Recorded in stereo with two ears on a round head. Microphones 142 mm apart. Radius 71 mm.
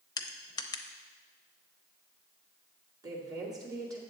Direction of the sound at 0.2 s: 20° left (ahead or behind).